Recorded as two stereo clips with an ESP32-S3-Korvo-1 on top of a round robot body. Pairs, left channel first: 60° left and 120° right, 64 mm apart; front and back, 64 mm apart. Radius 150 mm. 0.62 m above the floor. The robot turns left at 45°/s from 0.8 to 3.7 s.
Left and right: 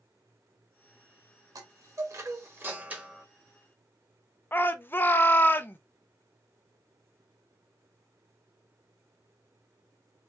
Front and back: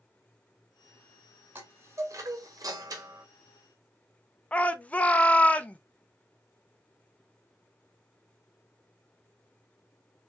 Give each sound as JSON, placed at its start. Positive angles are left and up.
{"t": 1.6, "sound": "a chime", "azimuth_deg": -125, "distance_m": 1.1}
{"t": 4.5, "sound": "a shout", "azimuth_deg": 45, "distance_m": 0.8}